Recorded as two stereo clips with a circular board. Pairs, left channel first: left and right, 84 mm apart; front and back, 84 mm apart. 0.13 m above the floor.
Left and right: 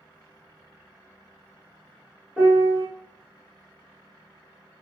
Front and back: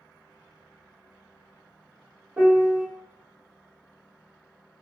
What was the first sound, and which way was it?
A piano, 150° right.